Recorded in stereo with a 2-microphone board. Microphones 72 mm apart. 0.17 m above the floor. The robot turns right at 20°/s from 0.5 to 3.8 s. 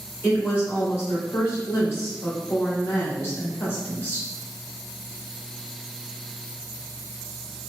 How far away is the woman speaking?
About 2.0 m.